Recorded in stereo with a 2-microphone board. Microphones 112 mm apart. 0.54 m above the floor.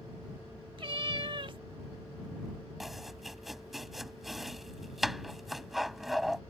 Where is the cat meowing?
50° right (ahead or behind).